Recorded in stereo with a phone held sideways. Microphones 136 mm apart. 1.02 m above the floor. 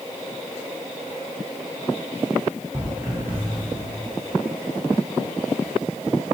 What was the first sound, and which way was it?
Footsteps, 25° right (ahead or behind).